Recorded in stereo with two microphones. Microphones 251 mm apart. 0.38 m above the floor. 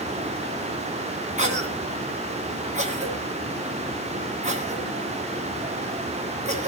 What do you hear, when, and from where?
1.4 s a cough: 30° right (ahead or behind), 3 m